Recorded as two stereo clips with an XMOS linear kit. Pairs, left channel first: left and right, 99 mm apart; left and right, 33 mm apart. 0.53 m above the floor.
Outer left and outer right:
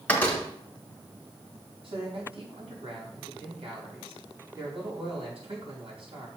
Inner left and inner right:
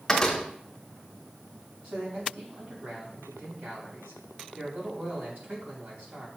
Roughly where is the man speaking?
Right.